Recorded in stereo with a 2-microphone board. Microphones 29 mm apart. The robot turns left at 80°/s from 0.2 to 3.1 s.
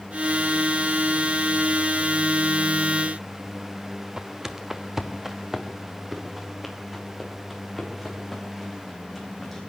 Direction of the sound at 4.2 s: 25° right (ahead or behind).